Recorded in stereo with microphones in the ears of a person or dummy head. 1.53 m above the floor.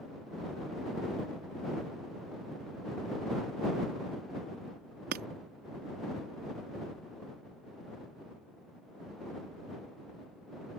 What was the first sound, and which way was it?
Breaking glass, 50° right (ahead or behind).